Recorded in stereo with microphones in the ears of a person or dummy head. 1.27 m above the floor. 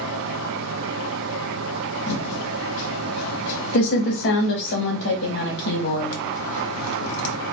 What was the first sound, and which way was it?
A fan, 80° right.